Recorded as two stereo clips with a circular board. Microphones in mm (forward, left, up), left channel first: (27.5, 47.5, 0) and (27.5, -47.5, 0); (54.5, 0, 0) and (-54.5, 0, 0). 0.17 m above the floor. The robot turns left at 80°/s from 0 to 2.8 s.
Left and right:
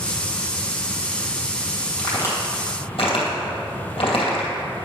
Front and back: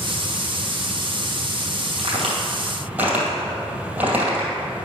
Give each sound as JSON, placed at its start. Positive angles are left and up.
{"t": 2.0, "sound": "a crack", "azimuth_deg": 170, "distance_m": 2.5}